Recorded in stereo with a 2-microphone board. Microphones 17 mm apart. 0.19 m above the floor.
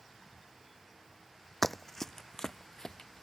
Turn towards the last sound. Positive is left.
turn(degrees=40)  # may be behind; listen again after turning